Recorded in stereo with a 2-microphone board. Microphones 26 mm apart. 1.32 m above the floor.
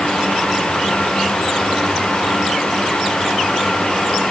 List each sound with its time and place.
Only background noise.